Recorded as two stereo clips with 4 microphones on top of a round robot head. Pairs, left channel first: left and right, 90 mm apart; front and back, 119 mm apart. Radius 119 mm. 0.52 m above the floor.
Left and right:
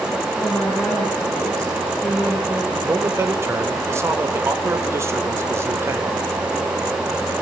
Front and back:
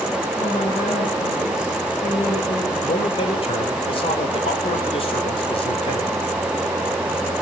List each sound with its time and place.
0.4 s a woman speaking: 15° left, 8 m
2.8 s a man speaking: 35° right, 3 m